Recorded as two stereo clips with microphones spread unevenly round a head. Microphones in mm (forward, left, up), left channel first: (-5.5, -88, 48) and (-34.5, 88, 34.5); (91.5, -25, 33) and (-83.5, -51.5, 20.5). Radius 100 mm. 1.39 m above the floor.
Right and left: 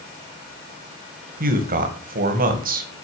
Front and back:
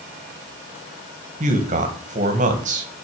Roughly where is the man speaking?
Behind left.